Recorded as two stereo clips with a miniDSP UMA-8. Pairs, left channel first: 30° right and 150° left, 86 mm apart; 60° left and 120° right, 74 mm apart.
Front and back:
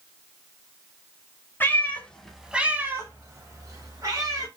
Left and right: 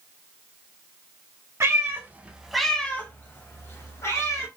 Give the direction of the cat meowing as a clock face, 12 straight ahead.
3 o'clock.